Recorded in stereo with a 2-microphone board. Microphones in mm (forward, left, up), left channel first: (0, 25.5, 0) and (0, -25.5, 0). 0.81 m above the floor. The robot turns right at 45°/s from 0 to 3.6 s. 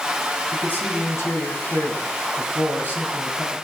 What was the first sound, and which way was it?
A man speaking, 35° left.